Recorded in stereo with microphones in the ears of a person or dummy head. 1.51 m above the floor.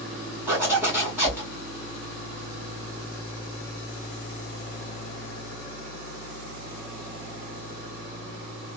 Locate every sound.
0.5 s a zipper: 15° right (ahead or behind), 2 m